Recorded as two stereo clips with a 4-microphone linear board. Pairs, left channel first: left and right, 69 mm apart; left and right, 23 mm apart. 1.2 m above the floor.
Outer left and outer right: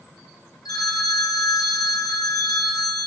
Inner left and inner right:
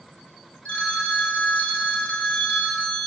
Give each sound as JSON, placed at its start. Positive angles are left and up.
{"t": 0.7, "sound": "a phone ringing", "side_deg": 75, "distance_m": 1.2}